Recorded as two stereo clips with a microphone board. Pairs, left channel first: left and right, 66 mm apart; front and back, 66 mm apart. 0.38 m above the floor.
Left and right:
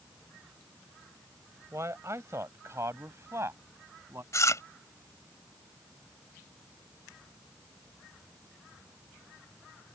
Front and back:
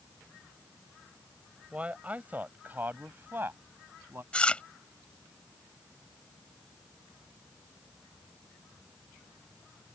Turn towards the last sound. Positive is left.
turn(degrees=70)